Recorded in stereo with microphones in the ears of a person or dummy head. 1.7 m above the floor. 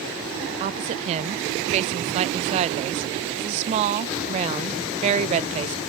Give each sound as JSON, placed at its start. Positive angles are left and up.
{"t": 0.6, "sound": "a woman speaking", "side_deg": -35, "distance_m": 0.5}